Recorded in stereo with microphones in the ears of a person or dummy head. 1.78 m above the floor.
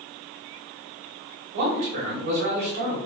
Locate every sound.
1.5 s a man speaking: 50° right (ahead or behind), 1.3 m